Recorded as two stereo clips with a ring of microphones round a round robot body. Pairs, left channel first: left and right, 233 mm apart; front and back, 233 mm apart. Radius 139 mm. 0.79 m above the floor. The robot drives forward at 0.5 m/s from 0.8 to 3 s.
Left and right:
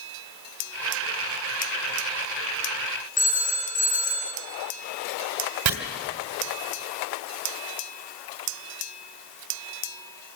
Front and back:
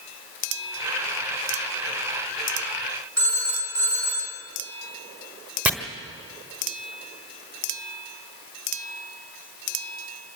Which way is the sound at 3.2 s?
145° left.